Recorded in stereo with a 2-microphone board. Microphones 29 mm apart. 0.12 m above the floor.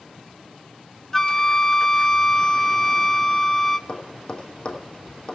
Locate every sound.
1.1 s a flute: 20° left (ahead or behind), 0.5 m
3.9 s tapping: 35° left (ahead or behind), 3 m